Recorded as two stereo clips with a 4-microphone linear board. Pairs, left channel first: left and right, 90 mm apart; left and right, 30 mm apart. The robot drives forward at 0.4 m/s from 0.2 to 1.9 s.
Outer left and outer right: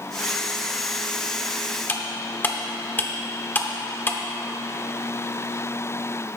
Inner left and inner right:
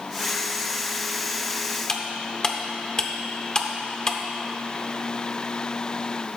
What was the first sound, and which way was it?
Cutlery clinking, 25° left (ahead or behind).